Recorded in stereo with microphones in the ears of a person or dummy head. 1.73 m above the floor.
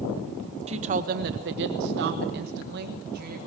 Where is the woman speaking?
45° right (ahead or behind), 0.9 m.